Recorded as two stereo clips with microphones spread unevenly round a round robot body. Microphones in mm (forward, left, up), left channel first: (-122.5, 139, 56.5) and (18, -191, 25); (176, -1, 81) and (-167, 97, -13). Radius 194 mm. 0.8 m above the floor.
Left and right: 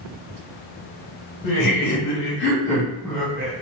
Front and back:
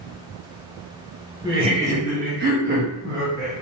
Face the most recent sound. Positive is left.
turn(degrees=-145)